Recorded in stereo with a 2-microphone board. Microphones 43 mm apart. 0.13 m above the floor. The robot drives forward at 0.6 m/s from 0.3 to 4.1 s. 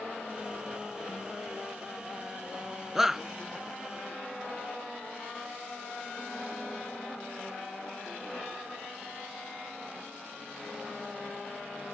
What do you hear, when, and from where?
3.0 s a shout: 10° right (ahead or behind)